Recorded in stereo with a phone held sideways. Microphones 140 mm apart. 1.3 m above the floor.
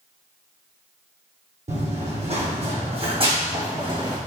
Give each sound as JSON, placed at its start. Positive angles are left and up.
{"t": 1.7, "sound": "running footsteps", "side_deg": -60, "distance_m": 2.5}